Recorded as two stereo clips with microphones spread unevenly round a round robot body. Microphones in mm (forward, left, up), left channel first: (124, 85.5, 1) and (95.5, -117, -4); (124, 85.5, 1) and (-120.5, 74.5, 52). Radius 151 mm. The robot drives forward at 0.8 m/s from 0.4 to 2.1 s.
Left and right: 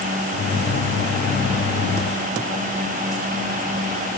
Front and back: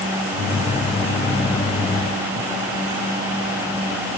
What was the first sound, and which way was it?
Only background noise.